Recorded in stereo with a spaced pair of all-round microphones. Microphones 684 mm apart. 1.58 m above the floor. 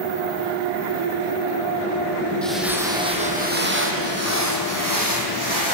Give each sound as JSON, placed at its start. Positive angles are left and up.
{"t": 2.4, "sound": "footsteps", "side_deg": 0, "distance_m": 3.5}